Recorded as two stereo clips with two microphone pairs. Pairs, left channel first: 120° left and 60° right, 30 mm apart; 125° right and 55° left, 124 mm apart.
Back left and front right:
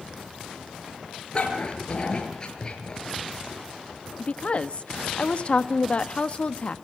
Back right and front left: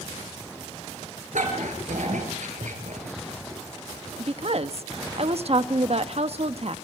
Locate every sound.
1.3 s a dog barking: 65° left, 6 m; by 3.2 s 55° left, 6 m
4.2 s a woman speaking: 80° left, 1.1 m